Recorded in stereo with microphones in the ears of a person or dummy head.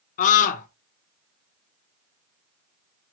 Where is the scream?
45° left (ahead or behind), 1.1 m.